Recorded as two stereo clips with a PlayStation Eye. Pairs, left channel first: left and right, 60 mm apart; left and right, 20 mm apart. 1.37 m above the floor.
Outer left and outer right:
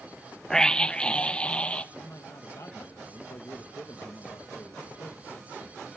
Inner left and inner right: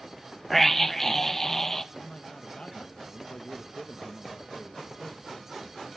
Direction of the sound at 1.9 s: 60° left (ahead or behind).